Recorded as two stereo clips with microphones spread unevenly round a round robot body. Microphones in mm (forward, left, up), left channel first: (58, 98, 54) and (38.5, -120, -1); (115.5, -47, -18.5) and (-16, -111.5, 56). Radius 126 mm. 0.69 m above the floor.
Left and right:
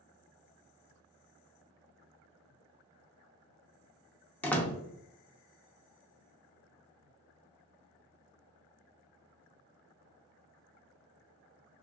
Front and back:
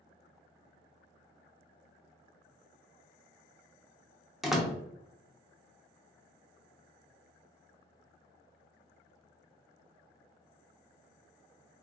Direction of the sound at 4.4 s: 15° right.